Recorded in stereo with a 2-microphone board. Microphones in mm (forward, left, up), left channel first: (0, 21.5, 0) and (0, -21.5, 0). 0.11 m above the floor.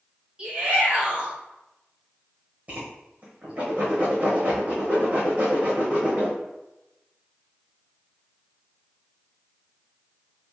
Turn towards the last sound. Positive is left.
turn(degrees=-30)  # may be behind; listen again after turning